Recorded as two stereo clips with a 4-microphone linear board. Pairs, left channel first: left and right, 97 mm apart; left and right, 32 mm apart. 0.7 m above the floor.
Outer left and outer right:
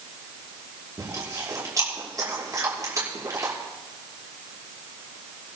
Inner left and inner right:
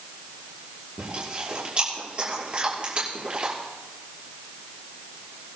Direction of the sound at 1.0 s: 35° right (ahead or behind).